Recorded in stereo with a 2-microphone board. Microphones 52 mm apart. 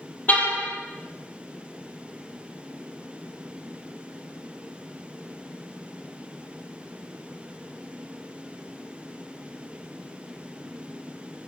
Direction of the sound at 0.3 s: 30° left (ahead or behind).